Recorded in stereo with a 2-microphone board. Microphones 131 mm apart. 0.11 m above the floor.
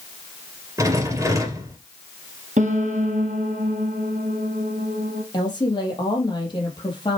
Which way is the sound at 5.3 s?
35° left (ahead or behind).